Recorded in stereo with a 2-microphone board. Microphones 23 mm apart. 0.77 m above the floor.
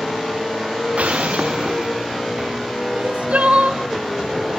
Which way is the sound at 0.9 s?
75° right (ahead or behind).